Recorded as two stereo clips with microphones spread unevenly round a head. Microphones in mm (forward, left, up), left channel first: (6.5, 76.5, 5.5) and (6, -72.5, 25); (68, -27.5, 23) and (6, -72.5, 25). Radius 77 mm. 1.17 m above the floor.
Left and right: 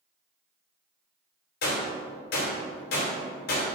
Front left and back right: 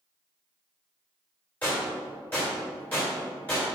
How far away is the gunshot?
About 2.5 m.